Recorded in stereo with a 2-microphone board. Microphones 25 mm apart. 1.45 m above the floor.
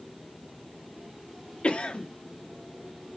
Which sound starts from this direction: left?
A cough, at 1.6 s.